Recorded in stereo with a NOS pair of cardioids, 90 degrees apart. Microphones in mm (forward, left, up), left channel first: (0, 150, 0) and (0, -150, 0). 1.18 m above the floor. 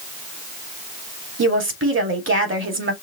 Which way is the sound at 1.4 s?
45° right.